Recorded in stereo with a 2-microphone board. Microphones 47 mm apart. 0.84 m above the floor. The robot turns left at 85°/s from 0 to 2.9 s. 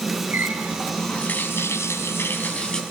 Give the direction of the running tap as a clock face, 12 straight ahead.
4 o'clock.